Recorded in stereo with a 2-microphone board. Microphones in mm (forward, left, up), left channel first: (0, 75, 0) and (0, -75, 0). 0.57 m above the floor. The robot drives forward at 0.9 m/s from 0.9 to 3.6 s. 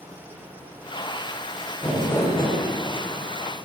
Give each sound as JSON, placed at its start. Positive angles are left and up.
{"t": 1.8, "sound": "crumpling", "side_deg": 15, "distance_m": 2.0}